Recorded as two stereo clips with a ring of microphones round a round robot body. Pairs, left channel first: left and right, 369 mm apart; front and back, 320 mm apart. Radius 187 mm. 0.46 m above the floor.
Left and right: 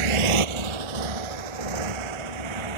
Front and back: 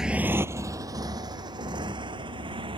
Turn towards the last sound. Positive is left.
turn(degrees=-100)